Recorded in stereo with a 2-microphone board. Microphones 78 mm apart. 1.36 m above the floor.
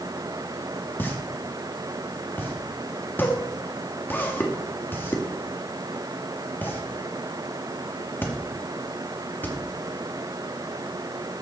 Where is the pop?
25° left (ahead or behind), 2 m.